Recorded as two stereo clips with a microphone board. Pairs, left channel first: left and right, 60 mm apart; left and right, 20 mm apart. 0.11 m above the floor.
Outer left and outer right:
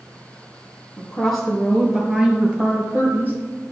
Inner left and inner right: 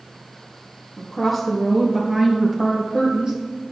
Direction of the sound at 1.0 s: 10° left (ahead or behind).